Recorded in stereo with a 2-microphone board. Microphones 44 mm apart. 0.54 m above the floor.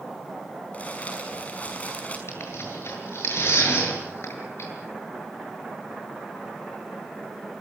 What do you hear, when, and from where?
0.7 s crumpling: 30° left (ahead or behind), 5.5 m
2.3 s tearing paper: 70° left (ahead or behind), 8 m